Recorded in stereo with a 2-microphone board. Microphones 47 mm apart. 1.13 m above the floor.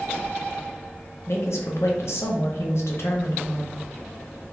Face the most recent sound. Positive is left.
turn(degrees=70)  # may be behind; listen again after turning